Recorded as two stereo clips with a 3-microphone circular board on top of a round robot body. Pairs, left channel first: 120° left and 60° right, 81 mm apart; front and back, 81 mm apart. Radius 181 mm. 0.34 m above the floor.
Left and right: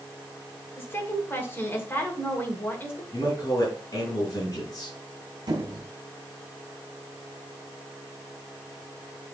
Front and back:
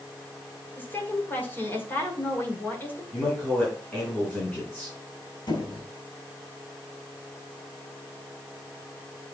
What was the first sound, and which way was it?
A woman speaking, 60° left.